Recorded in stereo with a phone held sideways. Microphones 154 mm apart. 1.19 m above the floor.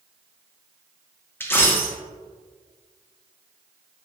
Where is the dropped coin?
15° left (ahead or behind), 0.6 m.